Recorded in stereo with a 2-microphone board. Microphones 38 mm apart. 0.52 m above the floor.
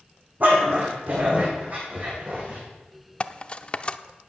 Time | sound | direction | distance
0.4 | a dog barking | 55° right (ahead or behind) | 7.5 m
3.2 | cutlery clinking | 30° left (ahead or behind) | 0.5 m